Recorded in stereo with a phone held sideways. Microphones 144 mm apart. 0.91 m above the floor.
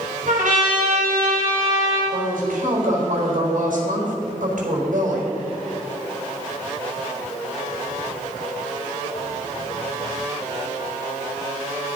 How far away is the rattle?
No rattle in this recording.